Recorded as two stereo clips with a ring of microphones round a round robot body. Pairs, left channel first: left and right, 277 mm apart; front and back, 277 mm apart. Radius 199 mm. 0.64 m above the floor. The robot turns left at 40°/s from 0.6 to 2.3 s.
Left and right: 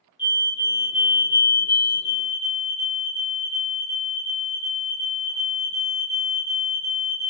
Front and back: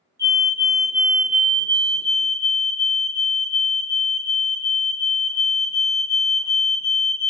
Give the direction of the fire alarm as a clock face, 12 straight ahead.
8 o'clock.